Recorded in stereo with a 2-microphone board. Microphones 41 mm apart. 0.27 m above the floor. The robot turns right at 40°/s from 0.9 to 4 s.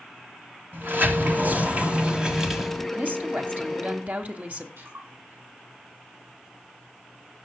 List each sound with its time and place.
0.7 s a sliding door: 75° right, 1.3 m; by 2.9 s 5° left, 1.3 m
3.0 s a woman speaking: 110° right, 1.5 m; by 4.7 s 70° right, 1.5 m
4.8 s a splash: 85° right, 7 m